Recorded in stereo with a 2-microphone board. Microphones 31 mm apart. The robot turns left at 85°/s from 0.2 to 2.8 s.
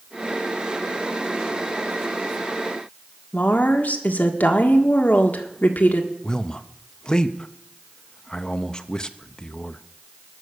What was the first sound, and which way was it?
A woman speaking, 70° left (ahead or behind).